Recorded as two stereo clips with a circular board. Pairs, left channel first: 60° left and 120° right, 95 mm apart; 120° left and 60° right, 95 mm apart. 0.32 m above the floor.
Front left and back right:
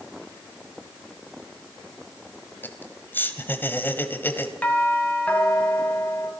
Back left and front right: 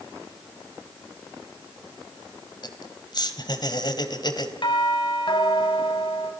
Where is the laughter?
120° left, 2 m.